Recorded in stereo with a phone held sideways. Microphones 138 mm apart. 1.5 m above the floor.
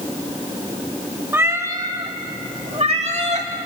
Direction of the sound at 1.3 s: 15° right (ahead or behind).